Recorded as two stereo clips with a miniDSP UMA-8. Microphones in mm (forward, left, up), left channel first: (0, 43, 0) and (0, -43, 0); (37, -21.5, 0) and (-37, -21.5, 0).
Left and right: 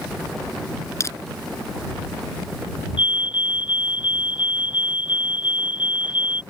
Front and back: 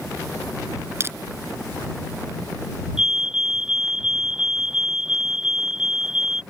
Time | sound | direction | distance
1.0 | crushing | 135° left | ?
3.0 | a fire alarm | 100° left | ?